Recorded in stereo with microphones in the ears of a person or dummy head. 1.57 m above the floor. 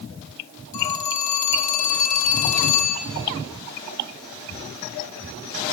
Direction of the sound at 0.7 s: 45° left (ahead or behind).